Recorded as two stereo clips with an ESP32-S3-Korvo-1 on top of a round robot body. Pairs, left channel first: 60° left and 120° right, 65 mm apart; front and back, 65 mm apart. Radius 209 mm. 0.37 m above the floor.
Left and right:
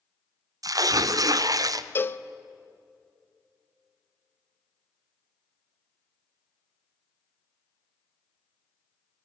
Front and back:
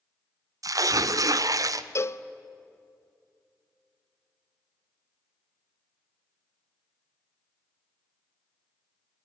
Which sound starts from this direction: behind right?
Tearing paper, at 0.6 s.